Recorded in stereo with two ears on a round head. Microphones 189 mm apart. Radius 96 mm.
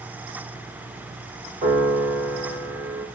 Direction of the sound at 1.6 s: 35° right (ahead or behind).